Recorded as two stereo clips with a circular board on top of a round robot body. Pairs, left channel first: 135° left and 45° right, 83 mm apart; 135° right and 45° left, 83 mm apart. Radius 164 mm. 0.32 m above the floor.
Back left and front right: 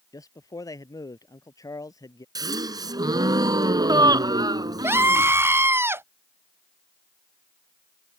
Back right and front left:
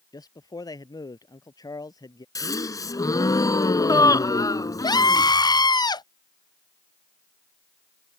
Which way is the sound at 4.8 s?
105° right.